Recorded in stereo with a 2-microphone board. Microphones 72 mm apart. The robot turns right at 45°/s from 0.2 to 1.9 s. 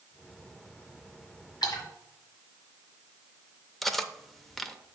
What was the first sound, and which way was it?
A splash, 75° left (ahead or behind).